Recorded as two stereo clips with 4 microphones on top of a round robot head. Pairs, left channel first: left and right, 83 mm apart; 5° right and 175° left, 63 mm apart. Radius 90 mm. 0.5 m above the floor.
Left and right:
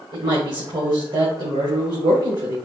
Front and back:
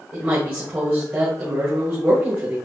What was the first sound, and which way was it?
A woman speaking, 120° right.